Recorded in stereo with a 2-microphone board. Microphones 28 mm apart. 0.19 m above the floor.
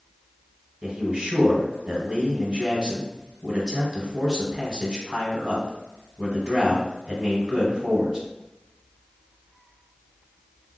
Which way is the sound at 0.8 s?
30° right (ahead or behind).